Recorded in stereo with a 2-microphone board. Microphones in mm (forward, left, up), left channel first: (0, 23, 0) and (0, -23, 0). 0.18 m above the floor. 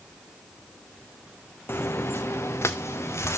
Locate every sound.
1.7 s footsteps: 60° left (ahead or behind), 0.7 m; by 3.4 s 80° left, 1.9 m